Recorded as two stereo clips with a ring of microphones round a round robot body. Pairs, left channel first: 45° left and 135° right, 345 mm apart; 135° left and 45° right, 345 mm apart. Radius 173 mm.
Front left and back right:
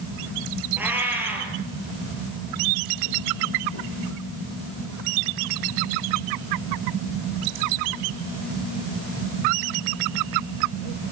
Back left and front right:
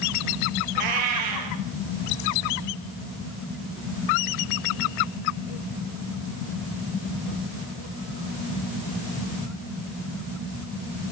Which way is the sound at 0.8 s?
50° right.